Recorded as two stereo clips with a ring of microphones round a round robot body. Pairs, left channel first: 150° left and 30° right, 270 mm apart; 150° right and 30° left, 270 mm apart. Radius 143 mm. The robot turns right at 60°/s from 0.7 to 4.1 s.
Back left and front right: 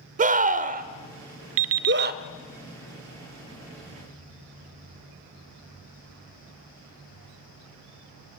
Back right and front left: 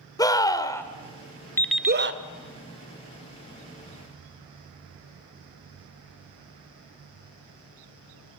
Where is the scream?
80° right, 1.4 m; by 2.2 s 10° left, 1.4 m.